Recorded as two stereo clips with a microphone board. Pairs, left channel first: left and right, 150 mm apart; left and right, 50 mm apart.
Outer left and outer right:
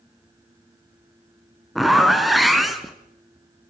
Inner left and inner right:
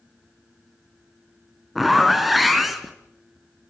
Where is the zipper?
Centre (ahead or behind), 2 m.